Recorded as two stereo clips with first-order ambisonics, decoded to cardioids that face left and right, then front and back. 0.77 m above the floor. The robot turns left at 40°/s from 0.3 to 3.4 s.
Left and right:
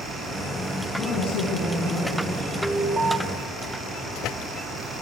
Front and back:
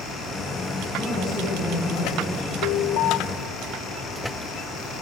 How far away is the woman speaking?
About 8.5 m.